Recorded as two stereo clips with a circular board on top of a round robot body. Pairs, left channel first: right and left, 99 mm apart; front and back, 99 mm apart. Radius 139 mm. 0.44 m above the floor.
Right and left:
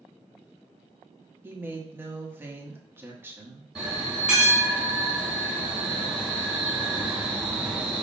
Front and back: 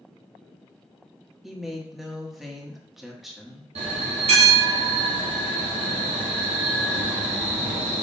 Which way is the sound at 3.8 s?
170° left.